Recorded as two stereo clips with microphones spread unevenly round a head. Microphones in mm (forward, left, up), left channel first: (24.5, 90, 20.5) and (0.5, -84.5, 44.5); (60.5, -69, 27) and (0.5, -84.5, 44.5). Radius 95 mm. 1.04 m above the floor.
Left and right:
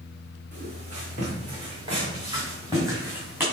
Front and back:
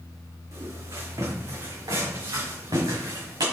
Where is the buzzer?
I don't hear a buzzer.